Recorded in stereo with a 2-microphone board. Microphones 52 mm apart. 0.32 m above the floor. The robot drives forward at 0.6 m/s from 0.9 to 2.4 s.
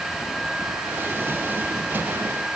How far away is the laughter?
I don't hear laughter.